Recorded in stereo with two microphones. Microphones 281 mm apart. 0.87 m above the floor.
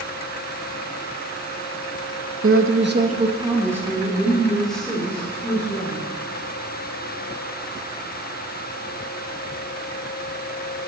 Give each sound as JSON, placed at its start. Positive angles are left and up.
{"t": 2.4, "sound": "a woman speaking", "side_deg": -50, "distance_m": 0.9}